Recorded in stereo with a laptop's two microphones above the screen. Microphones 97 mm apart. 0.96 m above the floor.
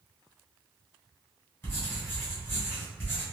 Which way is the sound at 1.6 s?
25° left (ahead or behind).